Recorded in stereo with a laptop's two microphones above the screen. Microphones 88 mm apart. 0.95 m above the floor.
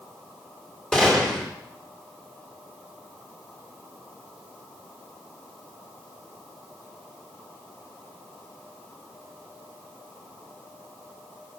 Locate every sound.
0.9 s a gunshot: 5° left (ahead or behind), 3 m